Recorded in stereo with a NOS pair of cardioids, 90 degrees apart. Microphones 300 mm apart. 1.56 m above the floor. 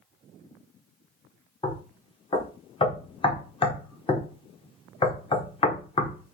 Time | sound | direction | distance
1.6 | knocking | 20° left | 0.9 m